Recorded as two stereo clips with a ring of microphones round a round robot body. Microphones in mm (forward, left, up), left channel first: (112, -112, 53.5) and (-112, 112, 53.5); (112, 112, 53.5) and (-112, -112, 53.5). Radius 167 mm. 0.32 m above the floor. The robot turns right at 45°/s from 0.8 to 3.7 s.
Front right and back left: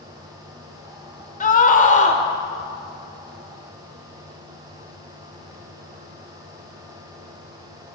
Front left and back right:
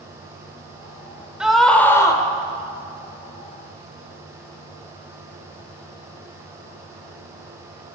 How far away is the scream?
About 1.6 m.